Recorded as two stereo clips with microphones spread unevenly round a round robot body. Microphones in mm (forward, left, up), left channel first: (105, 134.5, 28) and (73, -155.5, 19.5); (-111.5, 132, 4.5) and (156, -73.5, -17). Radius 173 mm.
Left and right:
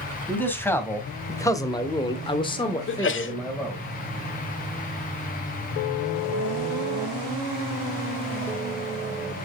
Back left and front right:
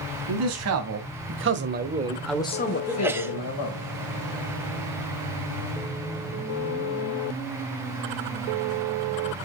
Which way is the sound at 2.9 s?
40° left.